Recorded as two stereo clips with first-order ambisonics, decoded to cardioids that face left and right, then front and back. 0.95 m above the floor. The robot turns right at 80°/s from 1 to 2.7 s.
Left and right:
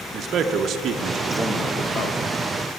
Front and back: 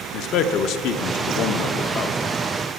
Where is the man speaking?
35° right, 0.6 m; by 2.2 s 60° left, 0.6 m.